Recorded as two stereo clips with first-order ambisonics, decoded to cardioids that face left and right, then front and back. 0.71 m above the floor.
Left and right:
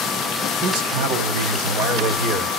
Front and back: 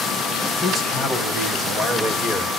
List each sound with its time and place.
0.6 s a man speaking: 80° right, 2.5 m; by 2.5 s 100° right, 3.5 m